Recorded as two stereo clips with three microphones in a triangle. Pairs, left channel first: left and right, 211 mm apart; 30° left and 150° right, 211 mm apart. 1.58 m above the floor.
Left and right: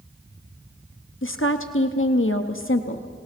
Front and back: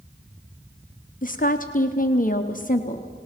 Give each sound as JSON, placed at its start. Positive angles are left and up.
{"t": 1.2, "sound": "a woman speaking", "azimuth_deg": 75, "distance_m": 0.8}